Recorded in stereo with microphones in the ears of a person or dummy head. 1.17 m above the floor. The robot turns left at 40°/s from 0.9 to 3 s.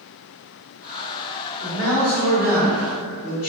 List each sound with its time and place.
1.6 s a man speaking: 125° left, 1.8 m; by 3.5 s 70° left, 1.8 m